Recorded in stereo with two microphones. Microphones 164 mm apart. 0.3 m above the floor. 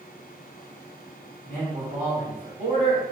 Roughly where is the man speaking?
Right.